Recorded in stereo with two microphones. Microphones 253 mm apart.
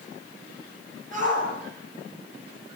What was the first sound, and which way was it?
A shout, 30° right (ahead or behind).